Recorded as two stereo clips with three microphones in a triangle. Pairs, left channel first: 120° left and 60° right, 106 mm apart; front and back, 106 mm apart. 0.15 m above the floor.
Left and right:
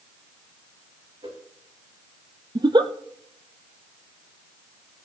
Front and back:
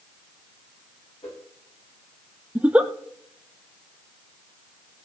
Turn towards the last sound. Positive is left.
turn(degrees=-100)